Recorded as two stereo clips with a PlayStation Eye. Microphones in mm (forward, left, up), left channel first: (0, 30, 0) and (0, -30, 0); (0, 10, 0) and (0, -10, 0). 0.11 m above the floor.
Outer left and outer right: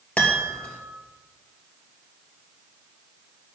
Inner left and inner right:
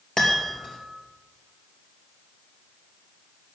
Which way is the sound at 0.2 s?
20° left (ahead or behind).